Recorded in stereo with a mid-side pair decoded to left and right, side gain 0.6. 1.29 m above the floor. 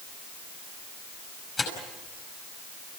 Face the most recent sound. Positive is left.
turn(degrees=25)